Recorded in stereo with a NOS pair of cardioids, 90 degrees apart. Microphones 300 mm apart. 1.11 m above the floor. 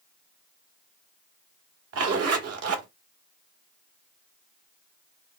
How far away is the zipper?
About 1.4 m.